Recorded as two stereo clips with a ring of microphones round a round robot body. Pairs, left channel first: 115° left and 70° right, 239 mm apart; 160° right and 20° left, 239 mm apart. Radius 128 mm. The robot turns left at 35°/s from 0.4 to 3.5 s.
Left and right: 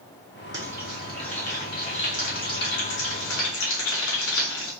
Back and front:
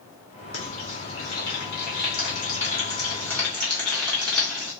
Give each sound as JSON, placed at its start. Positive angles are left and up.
{"t": 0.5, "sound": "frying", "azimuth_deg": -140, "distance_m": 2.0}